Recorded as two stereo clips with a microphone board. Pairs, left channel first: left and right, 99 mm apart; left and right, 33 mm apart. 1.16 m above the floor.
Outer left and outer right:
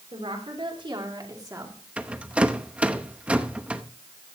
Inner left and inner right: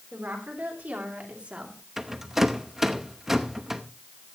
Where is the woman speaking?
65° right (ahead or behind), 4 m; by 1.8 s 30° right (ahead or behind), 3 m.